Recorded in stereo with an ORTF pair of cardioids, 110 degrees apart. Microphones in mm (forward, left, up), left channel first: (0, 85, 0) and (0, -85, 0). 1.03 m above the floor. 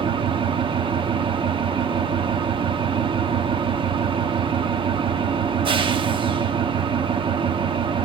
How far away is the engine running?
About 1.1 m.